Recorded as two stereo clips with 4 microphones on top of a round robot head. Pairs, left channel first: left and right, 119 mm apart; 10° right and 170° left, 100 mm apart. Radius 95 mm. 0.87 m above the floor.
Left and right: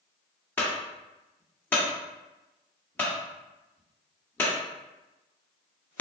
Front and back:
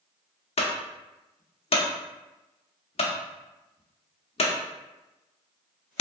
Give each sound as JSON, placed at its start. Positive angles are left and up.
{"t": 0.6, "sound": "a clunk", "azimuth_deg": 10, "distance_m": 0.9}